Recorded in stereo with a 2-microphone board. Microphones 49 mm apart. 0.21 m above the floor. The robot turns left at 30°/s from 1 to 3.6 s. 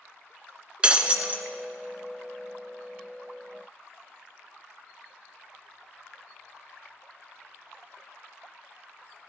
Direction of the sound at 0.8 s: 20° right (ahead or behind).